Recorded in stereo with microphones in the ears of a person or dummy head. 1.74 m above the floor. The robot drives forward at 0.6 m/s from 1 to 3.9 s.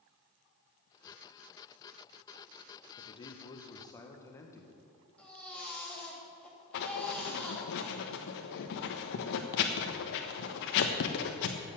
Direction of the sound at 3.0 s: 30° left (ahead or behind).